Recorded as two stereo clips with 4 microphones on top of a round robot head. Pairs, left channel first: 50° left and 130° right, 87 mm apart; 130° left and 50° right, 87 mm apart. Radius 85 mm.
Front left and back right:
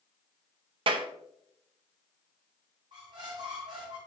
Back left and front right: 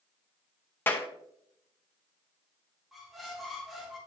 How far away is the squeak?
About 1.1 m.